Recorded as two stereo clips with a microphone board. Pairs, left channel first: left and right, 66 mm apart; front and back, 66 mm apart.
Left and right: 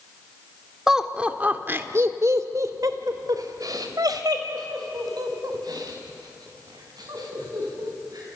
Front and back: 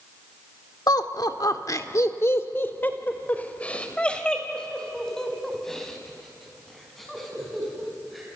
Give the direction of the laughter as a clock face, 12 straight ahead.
12 o'clock.